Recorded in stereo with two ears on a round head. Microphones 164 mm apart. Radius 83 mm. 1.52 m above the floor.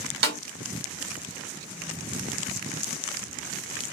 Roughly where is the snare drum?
Right.